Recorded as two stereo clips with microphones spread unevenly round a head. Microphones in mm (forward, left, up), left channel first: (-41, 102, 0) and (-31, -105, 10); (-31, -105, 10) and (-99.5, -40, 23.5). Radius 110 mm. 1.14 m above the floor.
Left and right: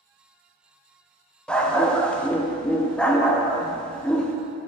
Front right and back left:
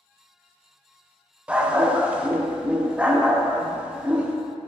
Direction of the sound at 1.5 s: Straight behind.